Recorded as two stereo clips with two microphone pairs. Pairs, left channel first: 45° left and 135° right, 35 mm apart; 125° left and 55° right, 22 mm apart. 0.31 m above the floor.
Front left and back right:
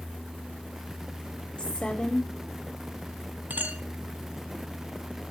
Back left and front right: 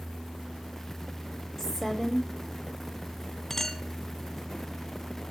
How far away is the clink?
About 1.8 m.